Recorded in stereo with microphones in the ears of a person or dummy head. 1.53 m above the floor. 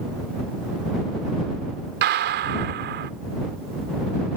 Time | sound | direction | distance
2.0 | a gunshot | 60° right (ahead or behind) | ?